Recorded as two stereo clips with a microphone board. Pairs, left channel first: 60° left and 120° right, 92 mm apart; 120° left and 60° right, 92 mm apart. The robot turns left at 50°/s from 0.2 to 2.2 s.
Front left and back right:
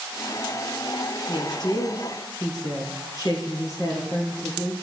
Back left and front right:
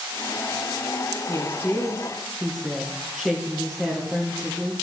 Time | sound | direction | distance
1.3 | a woman speaking | 75° left | 2.5 m